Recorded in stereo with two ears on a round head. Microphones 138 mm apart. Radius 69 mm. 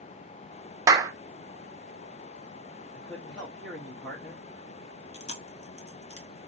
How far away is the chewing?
About 1.1 m.